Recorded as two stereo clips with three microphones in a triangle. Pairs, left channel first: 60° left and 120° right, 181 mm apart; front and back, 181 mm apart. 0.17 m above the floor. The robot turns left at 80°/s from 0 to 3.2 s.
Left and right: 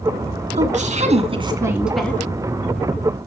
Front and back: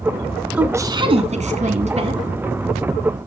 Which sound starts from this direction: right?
A woman speaking, at 0.5 s.